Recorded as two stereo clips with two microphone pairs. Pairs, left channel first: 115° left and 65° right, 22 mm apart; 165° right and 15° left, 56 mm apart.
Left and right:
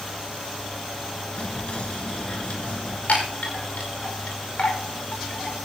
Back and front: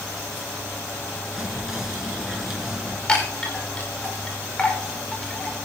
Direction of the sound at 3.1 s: 130° left.